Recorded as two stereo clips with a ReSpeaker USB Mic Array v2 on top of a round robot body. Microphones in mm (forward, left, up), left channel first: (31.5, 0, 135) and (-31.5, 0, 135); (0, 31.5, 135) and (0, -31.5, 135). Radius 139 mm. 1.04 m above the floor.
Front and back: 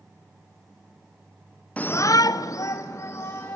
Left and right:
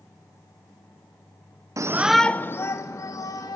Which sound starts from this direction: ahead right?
A shout, at 1.8 s.